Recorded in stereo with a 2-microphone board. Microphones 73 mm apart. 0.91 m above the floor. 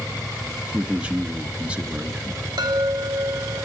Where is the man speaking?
15° right (ahead or behind), 1.0 m.